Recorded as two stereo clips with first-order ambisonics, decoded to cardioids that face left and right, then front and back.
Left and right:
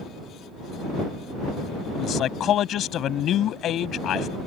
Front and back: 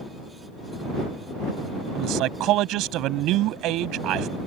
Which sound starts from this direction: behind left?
A man speaking, at 1.9 s.